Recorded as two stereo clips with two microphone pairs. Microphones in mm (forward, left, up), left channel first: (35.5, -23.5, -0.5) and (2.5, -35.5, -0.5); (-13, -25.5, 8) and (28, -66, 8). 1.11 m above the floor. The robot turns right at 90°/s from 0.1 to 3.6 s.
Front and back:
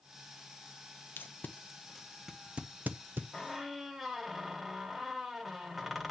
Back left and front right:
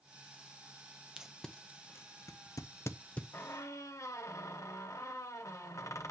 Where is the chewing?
No chewing in this recording.